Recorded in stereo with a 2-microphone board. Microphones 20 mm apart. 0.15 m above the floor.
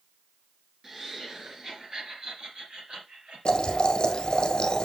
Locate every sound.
0.8 s laughter: 15° right (ahead or behind), 2.5 m; by 4.5 s 60° right (ahead or behind), 4 m
3.5 s boiling: 45° left (ahead or behind), 1.2 m